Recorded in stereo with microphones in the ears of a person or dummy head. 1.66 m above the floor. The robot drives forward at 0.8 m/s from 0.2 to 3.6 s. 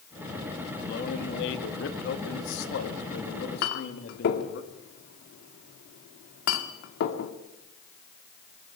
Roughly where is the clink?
Left.